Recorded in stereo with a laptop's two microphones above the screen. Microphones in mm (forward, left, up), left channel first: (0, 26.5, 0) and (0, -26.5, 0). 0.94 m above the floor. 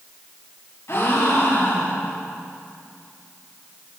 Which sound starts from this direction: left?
A gasp, at 0.9 s.